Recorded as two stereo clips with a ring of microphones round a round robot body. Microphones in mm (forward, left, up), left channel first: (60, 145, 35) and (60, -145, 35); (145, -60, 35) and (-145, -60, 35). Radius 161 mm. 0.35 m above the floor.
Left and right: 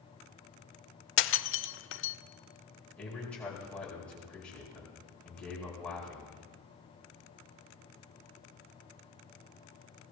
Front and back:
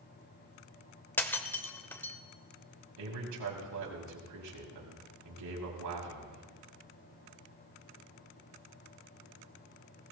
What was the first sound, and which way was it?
Breaking glass, 80° left.